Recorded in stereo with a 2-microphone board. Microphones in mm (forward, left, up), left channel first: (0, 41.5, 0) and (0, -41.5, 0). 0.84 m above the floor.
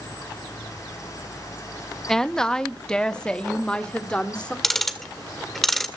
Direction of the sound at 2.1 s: 5° left (ahead or behind).